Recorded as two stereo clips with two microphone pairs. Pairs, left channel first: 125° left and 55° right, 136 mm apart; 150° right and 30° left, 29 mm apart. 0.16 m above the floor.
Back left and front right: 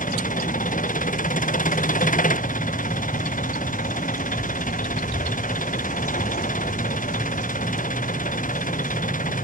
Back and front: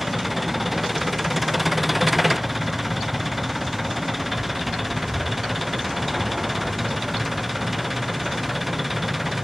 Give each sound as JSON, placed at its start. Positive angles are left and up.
{"t": 0.0, "sound": "an engine running", "azimuth_deg": 115}